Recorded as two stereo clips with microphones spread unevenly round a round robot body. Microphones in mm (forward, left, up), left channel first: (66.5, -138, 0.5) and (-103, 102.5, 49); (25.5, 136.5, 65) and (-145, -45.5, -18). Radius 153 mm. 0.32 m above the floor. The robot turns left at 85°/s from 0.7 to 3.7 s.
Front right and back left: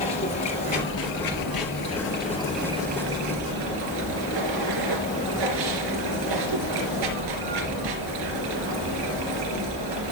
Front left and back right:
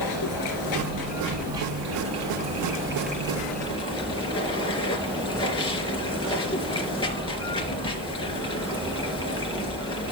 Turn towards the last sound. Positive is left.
turn(degrees=120)